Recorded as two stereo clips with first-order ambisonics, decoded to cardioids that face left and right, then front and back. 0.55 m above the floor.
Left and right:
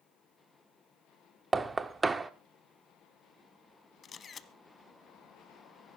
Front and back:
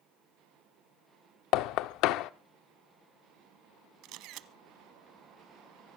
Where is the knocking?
15° right, 0.6 m.